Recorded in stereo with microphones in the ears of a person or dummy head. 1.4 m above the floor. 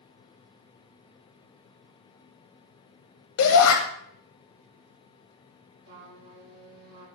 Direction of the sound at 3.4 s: 70° left (ahead or behind).